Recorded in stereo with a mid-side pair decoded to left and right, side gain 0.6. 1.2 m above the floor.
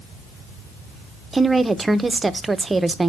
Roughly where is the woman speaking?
Ahead.